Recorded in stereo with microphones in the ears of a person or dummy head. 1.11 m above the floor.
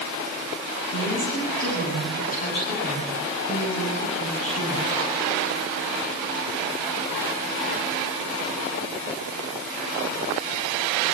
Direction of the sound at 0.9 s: 50° left (ahead or behind).